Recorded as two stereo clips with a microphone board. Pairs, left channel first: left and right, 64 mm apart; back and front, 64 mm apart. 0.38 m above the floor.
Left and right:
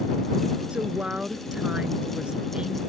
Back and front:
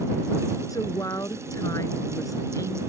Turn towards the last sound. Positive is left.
turn(degrees=-165)